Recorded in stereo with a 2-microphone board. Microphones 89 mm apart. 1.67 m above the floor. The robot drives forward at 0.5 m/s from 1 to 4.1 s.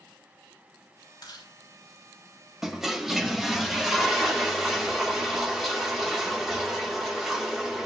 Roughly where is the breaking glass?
I don't hear breaking glass.